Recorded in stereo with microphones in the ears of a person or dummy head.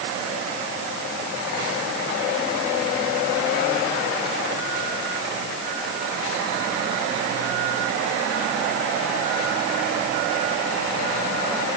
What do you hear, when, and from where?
Only background noise.